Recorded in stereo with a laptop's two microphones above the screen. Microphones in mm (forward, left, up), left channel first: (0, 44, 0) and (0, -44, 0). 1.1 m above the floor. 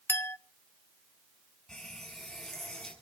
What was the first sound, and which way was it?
A clink, 25° left (ahead or behind).